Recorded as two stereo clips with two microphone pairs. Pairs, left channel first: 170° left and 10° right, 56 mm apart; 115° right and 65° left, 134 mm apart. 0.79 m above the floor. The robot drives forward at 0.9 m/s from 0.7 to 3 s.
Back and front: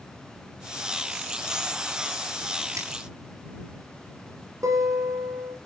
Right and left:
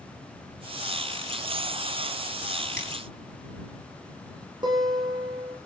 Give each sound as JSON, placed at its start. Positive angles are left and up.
{"t": 2.8, "sound": "a finger snap", "azimuth_deg": -20, "distance_m": 9.0}
{"t": 4.6, "sound": "a guitar", "azimuth_deg": 5, "distance_m": 9.0}